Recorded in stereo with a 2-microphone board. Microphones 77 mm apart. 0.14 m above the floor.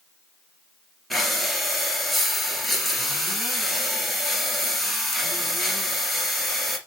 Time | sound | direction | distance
1.1 | breathing | centre (ahead or behind) | 2.5 m